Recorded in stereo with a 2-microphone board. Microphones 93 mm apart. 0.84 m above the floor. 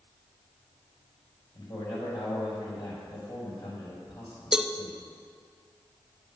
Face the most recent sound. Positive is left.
turn(degrees=-5)  # may be behind; listen again after turning